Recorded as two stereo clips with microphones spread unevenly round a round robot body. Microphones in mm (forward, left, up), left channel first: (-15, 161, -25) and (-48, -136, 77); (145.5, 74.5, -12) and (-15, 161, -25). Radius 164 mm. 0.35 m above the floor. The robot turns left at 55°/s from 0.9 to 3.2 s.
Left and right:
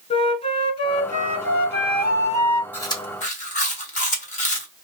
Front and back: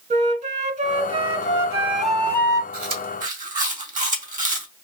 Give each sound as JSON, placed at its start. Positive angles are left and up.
{"t": 0.1, "sound": "a flute", "azimuth_deg": 130, "distance_m": 1.2}
{"t": 2.7, "sound": "chewing", "azimuth_deg": 150, "distance_m": 2.0}